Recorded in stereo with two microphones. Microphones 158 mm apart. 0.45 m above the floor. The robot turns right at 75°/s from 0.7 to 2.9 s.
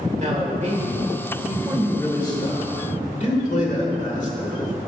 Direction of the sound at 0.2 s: 80° right.